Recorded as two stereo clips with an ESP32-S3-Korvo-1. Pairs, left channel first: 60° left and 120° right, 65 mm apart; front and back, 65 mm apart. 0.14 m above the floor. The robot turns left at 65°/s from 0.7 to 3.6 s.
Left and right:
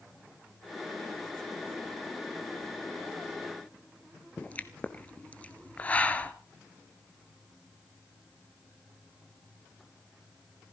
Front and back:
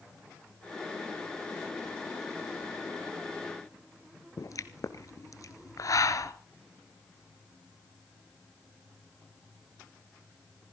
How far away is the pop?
About 1.2 m.